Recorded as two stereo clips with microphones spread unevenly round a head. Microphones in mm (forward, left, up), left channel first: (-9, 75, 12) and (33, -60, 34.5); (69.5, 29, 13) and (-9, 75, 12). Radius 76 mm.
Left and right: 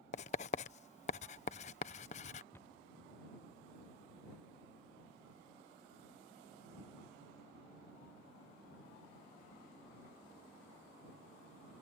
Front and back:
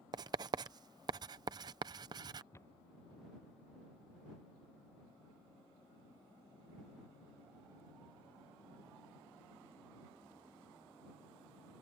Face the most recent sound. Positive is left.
turn(degrees=5)